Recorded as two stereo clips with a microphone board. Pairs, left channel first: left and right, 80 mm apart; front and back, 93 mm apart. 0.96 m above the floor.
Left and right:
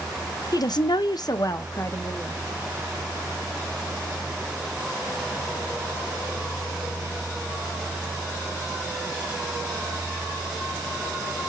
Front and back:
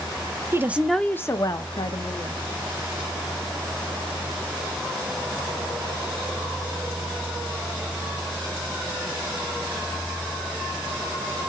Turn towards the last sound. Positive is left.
turn(degrees=25)